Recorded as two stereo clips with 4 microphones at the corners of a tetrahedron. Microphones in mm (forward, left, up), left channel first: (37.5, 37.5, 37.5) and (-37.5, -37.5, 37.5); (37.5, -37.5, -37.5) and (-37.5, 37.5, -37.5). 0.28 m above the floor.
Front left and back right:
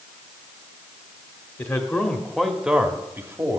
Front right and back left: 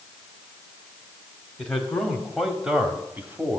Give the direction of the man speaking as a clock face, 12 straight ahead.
11 o'clock.